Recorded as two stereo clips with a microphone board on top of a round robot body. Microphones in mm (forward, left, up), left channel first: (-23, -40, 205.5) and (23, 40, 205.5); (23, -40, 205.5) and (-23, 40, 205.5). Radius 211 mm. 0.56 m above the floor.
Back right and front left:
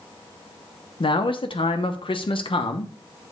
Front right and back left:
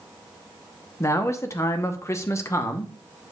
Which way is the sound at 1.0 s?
115° right.